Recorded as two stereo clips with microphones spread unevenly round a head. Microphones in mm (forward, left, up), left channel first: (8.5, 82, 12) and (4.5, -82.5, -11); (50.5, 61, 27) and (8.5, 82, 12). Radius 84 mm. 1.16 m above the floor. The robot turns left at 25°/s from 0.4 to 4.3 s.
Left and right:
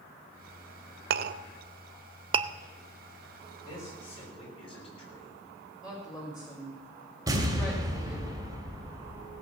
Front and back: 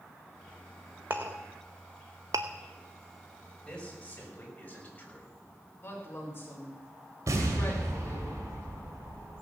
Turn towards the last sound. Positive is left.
turn(degrees=-165)